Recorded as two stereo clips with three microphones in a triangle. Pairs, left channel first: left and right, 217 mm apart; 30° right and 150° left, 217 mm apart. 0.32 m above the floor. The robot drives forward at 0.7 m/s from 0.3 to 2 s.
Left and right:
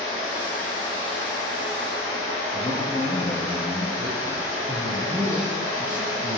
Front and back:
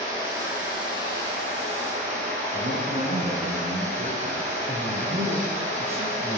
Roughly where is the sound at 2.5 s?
Behind left.